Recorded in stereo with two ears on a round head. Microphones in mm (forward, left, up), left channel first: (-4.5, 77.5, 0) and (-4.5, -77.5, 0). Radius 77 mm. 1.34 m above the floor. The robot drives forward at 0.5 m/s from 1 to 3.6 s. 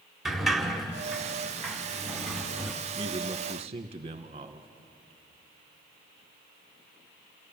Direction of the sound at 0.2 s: Centre (ahead or behind).